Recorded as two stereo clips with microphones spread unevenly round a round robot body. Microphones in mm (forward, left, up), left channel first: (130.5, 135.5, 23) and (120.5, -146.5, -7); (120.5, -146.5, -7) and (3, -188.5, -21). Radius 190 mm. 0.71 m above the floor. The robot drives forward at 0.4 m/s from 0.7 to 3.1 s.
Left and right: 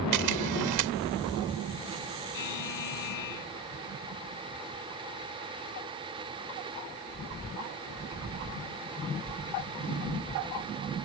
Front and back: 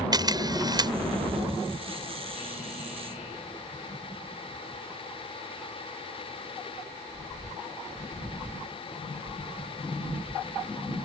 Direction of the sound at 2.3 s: 90° left.